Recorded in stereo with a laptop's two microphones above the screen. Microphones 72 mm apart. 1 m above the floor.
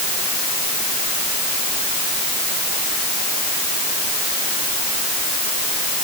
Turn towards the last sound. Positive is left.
No sound to turn to.